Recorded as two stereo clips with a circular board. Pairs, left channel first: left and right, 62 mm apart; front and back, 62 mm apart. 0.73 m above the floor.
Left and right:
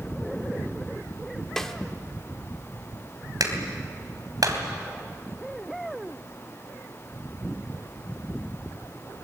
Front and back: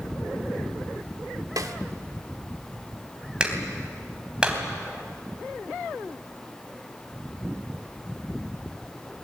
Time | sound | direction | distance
1.6 | a snare drum | 175° left | 1.4 m
3.4 | a clap | 105° right | 3 m